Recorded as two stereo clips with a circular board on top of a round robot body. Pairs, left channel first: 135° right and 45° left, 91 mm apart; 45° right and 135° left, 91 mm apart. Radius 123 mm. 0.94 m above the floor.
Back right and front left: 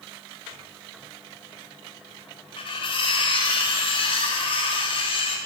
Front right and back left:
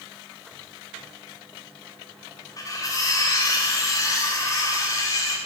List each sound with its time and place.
2.6 s cutlery clinking: 100° right, 1.3 m